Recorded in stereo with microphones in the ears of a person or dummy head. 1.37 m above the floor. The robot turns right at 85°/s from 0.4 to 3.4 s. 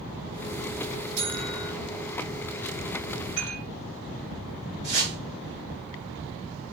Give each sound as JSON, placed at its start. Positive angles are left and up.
{"t": 1.2, "sound": "a buzzer", "azimuth_deg": -65, "distance_m": 7.0}
{"t": 3.4, "sound": "dishes clattering", "side_deg": 40, "distance_m": 5.5}
{"t": 4.8, "sound": "a whoosh", "side_deg": 40, "distance_m": 5.0}